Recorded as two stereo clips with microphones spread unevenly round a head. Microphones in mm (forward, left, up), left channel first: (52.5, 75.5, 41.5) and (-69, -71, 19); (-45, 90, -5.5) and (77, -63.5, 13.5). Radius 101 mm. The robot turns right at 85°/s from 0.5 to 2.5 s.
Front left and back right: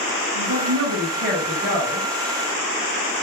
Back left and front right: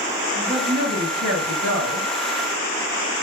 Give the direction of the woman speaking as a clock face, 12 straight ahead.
5 o'clock.